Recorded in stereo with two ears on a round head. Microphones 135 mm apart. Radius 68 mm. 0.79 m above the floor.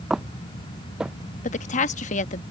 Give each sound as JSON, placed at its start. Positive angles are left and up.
{"t": 0.1, "sound": "footsteps", "side_deg": -5}
{"t": 1.4, "sound": "a woman speaking", "side_deg": 50}